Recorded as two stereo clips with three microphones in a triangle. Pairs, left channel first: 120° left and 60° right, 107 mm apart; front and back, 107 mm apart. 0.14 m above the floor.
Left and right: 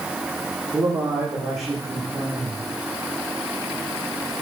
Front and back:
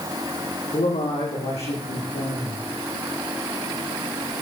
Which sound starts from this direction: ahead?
A man speaking, at 0.7 s.